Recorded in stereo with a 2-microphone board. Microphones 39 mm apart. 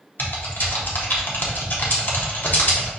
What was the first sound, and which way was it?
Typing on a keyboard, 55° left (ahead or behind).